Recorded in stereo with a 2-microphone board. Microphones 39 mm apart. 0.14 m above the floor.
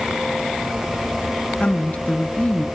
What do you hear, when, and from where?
1.6 s a woman speaking: 35° left (ahead or behind), 1.4 m